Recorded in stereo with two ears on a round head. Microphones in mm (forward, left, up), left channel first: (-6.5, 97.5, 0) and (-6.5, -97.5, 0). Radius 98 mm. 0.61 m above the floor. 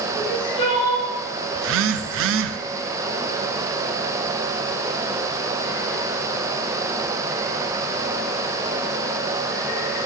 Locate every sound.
0.1 s crying: 25° left (ahead or behind), 3.5 m
1.6 s a phone buzzing: 60° right (ahead or behind), 0.5 m